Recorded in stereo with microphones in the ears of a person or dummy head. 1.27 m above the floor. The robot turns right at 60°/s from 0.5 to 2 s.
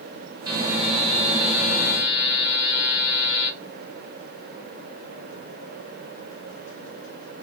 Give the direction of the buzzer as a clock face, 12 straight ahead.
1 o'clock.